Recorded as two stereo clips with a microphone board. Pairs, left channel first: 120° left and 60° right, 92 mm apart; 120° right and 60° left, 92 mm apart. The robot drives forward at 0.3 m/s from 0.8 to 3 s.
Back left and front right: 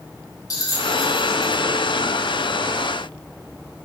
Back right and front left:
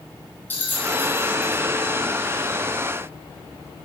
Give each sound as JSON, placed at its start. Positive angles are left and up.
{"t": 0.5, "sound": "a bell", "azimuth_deg": 170, "distance_m": 3.0}